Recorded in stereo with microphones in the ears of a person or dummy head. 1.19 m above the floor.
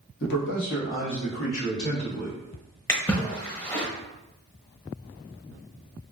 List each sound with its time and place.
0.2 s a man speaking: 65° left (ahead or behind), 1.2 m; by 2.4 s 90° left, 2 m
2.9 s a splash: 15° left (ahead or behind), 0.9 m